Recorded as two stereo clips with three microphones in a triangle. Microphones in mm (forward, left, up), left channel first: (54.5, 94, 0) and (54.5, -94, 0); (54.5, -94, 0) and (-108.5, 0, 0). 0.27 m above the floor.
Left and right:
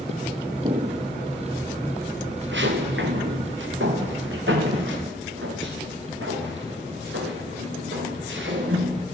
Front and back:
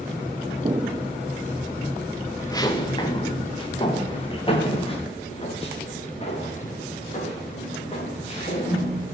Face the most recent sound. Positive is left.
turn(degrees=-85)